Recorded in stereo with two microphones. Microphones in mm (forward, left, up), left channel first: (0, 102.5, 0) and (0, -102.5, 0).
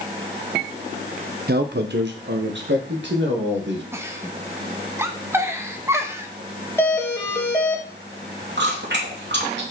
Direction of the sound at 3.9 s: 15° right (ahead or behind).